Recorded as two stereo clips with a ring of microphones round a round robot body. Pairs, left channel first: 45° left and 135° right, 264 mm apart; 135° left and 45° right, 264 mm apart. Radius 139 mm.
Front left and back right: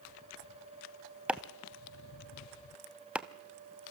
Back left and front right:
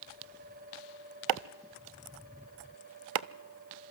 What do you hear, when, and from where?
1.3 s chopping: 50° right, 0.6 m